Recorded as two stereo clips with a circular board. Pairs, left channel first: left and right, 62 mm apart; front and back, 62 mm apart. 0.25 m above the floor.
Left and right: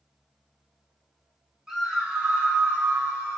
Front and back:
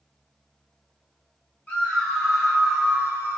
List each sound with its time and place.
1.7 s a scream: 25° right, 1.1 m; by 3.4 s 135° right, 1.2 m